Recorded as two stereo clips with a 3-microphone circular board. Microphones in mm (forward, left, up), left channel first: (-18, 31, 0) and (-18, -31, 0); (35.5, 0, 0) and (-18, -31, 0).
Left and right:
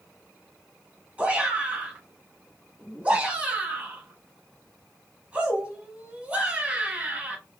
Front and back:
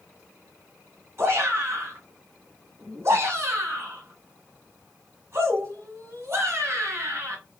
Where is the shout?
150° right, 2 m.